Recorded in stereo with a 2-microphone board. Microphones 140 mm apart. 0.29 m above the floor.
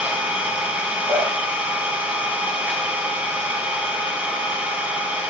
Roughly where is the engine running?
Centre.